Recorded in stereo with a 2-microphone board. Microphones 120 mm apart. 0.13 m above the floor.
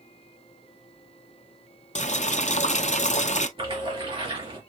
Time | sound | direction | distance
1.9 | boiling | 70° left (ahead or behind) | 0.7 m
3.6 | a splash | 45° right (ahead or behind) | 2.5 m